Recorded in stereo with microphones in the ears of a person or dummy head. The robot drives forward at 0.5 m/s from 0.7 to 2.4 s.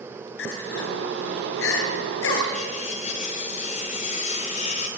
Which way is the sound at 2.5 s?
40° left (ahead or behind).